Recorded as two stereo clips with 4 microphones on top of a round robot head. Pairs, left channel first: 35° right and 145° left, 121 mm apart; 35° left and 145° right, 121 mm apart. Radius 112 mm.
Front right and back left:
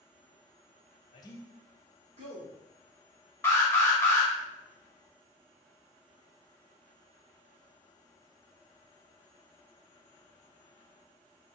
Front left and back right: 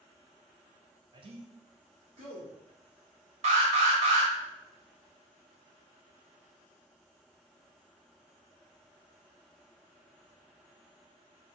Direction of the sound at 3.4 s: 110° right.